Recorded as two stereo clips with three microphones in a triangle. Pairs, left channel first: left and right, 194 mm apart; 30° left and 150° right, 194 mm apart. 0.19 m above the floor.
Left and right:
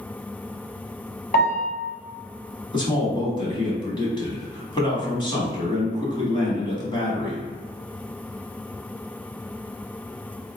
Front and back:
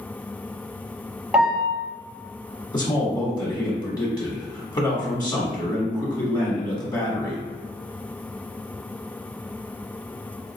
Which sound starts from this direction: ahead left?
A man speaking, at 2.7 s.